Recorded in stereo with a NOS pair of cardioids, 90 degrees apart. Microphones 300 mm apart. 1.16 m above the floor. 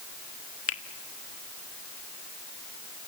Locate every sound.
0.7 s a finger snap: 45° left, 1.5 m